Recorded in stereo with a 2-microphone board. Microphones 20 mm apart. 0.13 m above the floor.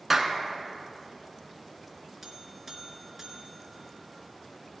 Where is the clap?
10° right (ahead or behind), 0.9 m.